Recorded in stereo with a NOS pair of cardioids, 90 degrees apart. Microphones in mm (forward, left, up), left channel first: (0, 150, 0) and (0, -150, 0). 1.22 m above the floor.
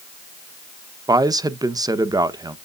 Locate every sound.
1.1 s a man speaking: 10° right, 0.9 m